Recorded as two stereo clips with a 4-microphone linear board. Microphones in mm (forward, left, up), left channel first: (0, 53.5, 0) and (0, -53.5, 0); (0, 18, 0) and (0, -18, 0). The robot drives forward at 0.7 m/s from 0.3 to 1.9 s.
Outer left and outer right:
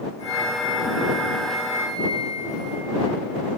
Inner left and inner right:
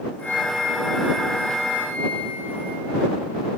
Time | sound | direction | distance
0.2 | a flute | 75° left (ahead or behind) | 6.5 m